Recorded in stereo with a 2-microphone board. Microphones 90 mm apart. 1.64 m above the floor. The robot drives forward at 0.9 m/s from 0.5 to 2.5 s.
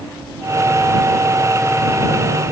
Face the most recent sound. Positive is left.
No sound to turn to.